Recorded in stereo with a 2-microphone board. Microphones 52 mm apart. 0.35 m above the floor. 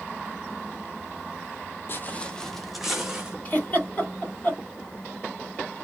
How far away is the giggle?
About 2.5 m.